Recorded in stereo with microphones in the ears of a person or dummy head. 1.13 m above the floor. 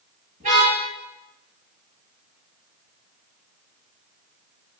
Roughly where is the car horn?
Right.